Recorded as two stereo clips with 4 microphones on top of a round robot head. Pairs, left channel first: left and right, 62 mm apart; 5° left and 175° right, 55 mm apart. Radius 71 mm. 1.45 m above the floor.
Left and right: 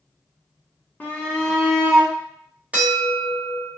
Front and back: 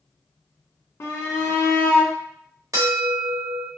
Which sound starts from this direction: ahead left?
A shout, at 1.0 s.